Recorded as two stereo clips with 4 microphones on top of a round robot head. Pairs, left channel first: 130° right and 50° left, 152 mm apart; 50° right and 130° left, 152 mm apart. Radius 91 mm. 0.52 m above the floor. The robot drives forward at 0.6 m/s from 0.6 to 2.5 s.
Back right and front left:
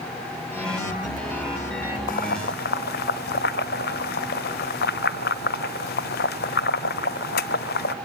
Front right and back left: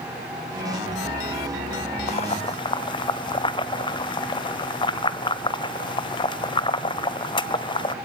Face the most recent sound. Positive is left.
turn(degrees=-110)